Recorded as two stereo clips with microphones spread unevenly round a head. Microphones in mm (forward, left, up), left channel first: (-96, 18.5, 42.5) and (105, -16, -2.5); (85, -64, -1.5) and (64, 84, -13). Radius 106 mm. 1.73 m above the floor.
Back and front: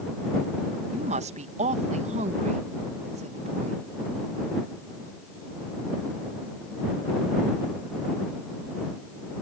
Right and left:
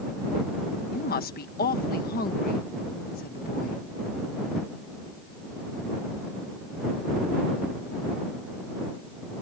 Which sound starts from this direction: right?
A woman speaking, at 0.9 s.